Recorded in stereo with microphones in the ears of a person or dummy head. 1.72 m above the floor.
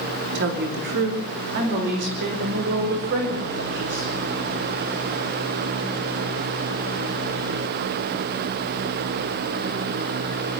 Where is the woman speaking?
55° right (ahead or behind), 3 m; by 4.1 s 50° right (ahead or behind), 9 m.